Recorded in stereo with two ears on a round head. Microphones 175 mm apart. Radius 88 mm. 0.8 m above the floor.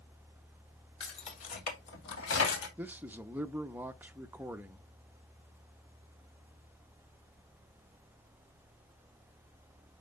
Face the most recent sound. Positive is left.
turn(degrees=-10)  # may be behind; listen again after turning